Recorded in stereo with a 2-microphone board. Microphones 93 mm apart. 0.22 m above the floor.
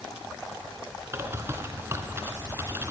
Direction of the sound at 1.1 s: 25° right (ahead or behind).